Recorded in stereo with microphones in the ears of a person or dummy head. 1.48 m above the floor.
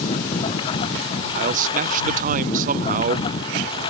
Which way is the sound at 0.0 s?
30° left (ahead or behind).